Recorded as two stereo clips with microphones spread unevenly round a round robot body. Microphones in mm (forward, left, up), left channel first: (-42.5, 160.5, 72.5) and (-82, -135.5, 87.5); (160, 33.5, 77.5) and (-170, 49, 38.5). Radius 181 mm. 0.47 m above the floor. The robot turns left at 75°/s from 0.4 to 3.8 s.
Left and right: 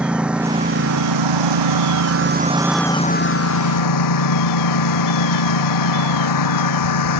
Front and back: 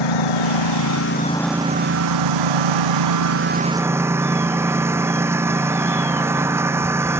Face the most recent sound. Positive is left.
turn(degrees=95)